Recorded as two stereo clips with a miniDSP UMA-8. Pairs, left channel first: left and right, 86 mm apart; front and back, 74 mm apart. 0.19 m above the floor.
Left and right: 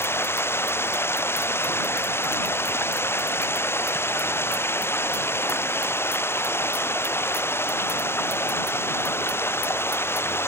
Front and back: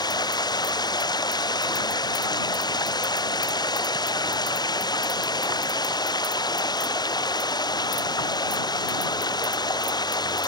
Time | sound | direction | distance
0.0 | running water | 25° left | ?